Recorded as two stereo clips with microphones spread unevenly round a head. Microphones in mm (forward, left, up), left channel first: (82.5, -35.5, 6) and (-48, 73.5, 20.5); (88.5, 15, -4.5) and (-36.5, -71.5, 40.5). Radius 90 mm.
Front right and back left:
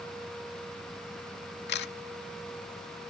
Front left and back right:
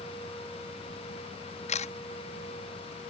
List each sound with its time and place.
1.7 s a camera shutter: 15° right